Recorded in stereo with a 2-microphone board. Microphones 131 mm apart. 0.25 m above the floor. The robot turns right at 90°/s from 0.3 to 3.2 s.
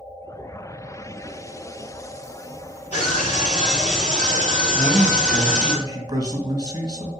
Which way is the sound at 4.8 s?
30° right (ahead or behind).